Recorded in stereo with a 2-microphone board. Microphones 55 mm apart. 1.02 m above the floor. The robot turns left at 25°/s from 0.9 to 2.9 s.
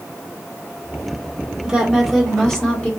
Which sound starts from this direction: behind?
A woman speaking, at 1.6 s.